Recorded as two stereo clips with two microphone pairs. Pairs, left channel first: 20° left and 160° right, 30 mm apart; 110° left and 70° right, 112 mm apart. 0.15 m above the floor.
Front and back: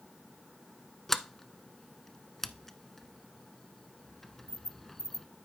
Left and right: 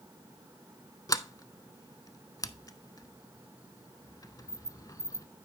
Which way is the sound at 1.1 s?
100° left.